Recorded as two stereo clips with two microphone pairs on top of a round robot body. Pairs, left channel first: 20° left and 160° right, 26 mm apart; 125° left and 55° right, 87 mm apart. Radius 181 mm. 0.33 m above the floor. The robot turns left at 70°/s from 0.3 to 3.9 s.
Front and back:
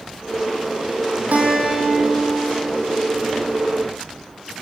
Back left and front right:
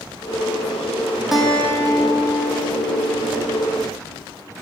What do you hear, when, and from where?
1.3 s a guitar: 140° right, 4 m; by 3.5 s 65° left, 4 m